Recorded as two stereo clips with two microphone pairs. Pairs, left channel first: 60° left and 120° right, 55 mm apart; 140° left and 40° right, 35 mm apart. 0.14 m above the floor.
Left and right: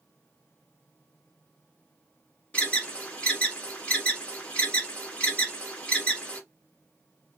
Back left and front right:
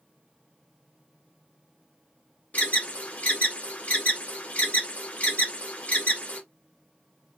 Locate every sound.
2.5 s an alarm: 120° left, 1.4 m